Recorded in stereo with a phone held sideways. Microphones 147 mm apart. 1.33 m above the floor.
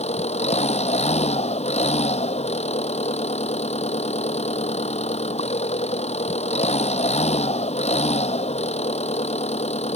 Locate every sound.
0.0 s an engine running: 50° left (ahead or behind)